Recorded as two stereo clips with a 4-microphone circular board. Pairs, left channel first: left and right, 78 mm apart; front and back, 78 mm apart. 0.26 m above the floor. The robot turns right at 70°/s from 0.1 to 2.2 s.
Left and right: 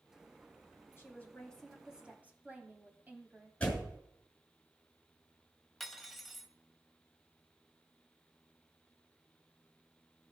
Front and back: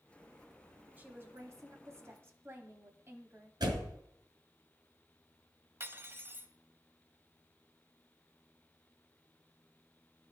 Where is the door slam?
165° left, 2.5 m.